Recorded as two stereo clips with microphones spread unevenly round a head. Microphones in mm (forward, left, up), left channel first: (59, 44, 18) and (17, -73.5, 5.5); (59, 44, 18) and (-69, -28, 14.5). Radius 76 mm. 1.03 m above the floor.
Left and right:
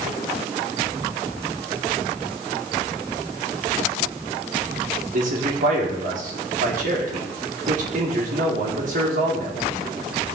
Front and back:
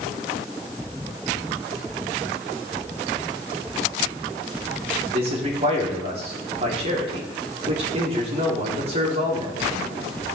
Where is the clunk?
I don't hear a clunk.